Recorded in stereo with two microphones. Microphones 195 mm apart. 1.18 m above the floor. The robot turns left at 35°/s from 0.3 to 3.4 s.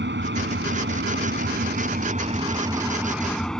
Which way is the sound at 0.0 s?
75° right.